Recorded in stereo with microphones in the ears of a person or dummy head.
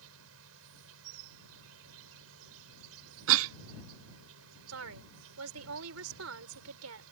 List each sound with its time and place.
0.0 s an insect: 75° right (ahead or behind)
3.3 s a cough: 75° right (ahead or behind)
4.7 s a woman speaking: 85° right